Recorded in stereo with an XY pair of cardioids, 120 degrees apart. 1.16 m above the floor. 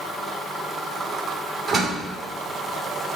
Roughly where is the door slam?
Ahead right.